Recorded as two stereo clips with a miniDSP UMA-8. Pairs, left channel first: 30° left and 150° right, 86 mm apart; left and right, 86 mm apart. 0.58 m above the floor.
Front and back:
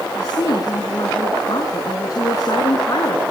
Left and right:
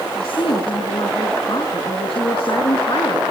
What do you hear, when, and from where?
0.1 s a woman speaking: 75° left, 5.5 m